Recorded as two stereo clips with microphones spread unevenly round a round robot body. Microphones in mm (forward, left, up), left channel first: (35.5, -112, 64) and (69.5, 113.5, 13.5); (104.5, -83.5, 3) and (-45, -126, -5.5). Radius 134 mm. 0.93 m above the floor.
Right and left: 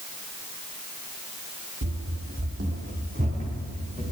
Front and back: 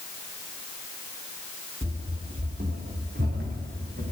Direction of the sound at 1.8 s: 130° left.